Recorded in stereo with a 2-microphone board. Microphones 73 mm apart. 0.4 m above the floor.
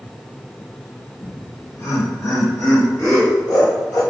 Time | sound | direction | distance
1.2 | laughter | 35° left (ahead or behind) | 1.5 m